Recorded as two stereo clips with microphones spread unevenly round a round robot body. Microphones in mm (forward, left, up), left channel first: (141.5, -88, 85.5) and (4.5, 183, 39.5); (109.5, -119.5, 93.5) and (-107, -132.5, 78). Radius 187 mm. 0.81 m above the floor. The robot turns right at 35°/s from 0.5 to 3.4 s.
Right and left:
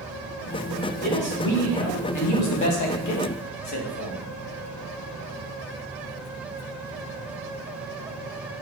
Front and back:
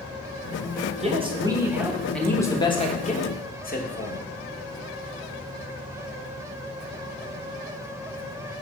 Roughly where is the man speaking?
Behind right.